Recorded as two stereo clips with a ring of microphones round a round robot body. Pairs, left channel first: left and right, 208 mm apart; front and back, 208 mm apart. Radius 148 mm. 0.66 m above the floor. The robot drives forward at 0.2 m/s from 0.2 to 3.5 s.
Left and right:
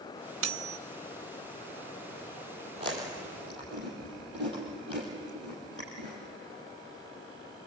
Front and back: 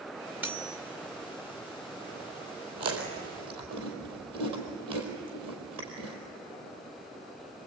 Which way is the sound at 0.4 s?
95° right.